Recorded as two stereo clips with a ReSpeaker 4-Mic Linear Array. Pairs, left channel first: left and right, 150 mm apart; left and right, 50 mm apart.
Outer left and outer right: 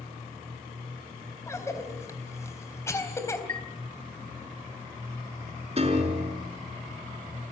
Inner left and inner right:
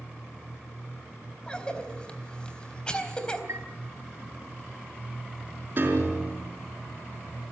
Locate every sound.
1.5 s a cough: 20° left (ahead or behind), 3.5 m
3.5 s a chime: 55° right (ahead or behind), 1.0 m
5.8 s a piano: 40° right (ahead or behind), 4.5 m